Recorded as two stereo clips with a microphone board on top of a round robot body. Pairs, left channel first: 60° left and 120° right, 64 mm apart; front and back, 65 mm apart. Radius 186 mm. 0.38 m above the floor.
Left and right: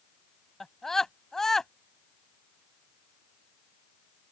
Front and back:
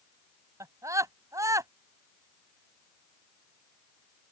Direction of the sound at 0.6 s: 145° left.